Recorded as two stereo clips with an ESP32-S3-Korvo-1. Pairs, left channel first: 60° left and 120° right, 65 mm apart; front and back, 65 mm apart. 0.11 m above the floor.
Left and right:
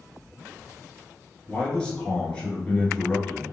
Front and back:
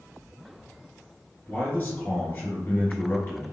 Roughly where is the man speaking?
Ahead.